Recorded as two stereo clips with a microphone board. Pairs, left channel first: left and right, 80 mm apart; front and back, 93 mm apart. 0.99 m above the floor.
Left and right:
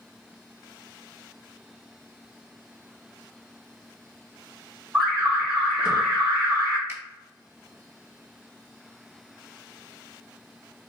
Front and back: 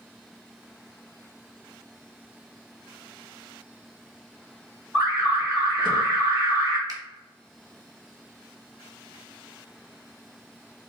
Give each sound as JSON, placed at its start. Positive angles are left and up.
{"t": 4.9, "sound": "an alarm", "azimuth_deg": -170, "distance_m": 2.0}
{"t": 6.9, "sound": "a finger snap", "azimuth_deg": -145, "distance_m": 1.2}